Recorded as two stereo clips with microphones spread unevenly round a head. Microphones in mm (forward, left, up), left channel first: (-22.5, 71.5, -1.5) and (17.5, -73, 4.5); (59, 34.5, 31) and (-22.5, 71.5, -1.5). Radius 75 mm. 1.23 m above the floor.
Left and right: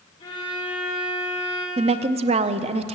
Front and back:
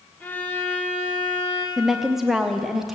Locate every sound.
0.2 s a violin: 45° left, 3 m
1.8 s a woman speaking: 125° right, 0.6 m